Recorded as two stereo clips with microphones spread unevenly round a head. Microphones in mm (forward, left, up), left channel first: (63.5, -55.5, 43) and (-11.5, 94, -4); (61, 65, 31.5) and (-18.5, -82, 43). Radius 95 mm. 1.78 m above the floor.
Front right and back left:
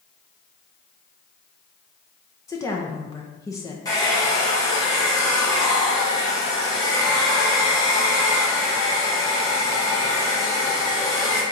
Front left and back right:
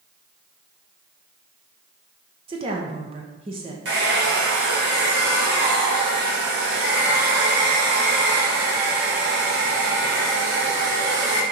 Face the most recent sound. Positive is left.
turn(degrees=-120)